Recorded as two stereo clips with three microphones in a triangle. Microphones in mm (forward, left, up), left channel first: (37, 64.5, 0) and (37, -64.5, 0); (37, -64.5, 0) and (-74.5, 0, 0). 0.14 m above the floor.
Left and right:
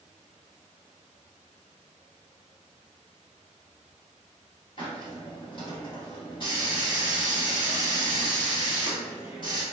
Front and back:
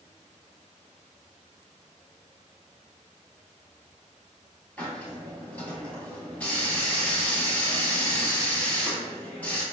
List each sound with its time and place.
4.8 s a hiss: 45° left, 1.3 m